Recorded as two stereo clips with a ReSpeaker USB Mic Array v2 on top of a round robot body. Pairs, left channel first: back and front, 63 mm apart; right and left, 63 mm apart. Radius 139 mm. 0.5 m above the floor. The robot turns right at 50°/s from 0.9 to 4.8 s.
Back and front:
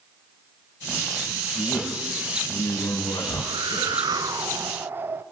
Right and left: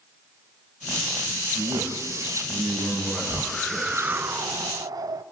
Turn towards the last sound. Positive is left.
turn(degrees=60)